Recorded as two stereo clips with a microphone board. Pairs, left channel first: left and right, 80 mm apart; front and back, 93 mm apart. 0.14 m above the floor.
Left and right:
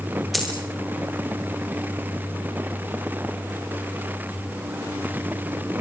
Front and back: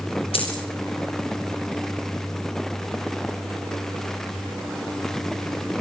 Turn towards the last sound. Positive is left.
turn(degrees=0)